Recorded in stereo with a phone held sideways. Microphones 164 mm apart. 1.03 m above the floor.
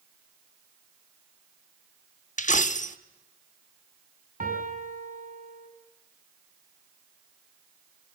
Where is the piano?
55° right (ahead or behind), 6.5 m.